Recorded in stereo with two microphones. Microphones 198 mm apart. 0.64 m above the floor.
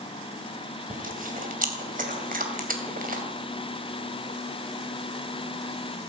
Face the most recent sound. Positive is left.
turn(degrees=-45)  # may be behind; listen again after turning